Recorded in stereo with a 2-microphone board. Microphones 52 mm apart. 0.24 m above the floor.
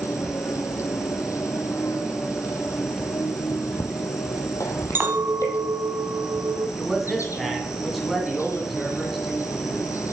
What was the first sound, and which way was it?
An insect, 75° left (ahead or behind).